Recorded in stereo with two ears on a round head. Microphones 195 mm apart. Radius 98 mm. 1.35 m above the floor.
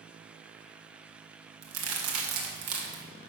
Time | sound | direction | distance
1.6 | a crack | 80° right | 2.5 m